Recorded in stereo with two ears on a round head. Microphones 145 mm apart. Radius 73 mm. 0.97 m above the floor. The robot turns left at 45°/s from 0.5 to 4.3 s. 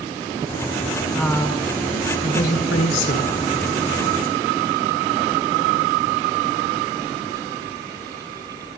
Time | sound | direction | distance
1.1 | a woman speaking | 175° right | 3 m